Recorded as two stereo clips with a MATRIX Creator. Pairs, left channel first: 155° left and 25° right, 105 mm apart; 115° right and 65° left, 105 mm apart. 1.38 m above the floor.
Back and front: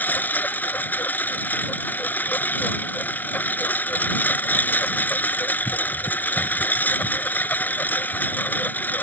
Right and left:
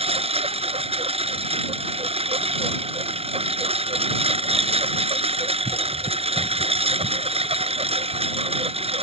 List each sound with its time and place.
0.0 s a lawn mower: 85° left